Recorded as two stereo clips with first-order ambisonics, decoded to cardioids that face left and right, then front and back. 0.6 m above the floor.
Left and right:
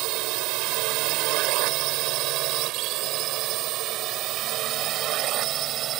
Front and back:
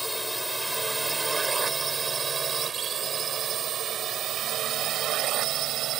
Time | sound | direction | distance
0.0 | a drone | 90° right | ?